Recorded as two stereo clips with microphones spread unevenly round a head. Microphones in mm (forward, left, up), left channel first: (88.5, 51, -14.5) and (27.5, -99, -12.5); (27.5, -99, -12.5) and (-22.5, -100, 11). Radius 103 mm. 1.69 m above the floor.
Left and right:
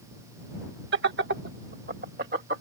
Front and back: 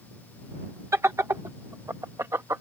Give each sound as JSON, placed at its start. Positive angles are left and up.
{"t": 0.9, "sound": "laughter", "azimuth_deg": -155}